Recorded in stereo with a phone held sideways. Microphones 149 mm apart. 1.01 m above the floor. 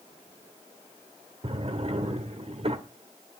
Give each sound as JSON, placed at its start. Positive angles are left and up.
{"t": 1.4, "sound": "a drawer", "side_deg": -45, "distance_m": 1.4}